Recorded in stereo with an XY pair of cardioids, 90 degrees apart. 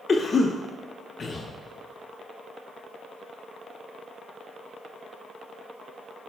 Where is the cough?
45° left, 0.8 m.